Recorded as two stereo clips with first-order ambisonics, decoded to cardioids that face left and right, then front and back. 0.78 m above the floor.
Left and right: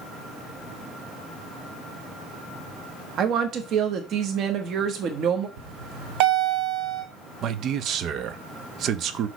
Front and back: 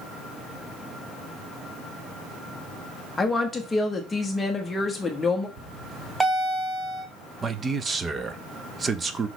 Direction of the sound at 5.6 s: 100° right.